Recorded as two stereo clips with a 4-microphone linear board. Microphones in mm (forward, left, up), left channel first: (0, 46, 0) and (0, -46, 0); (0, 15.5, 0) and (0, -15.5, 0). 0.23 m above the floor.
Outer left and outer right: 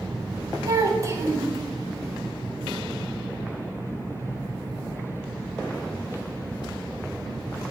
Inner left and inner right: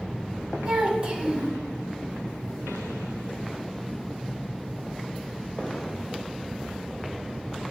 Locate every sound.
0.7 s a child speaking: 35° right (ahead or behind), 0.7 m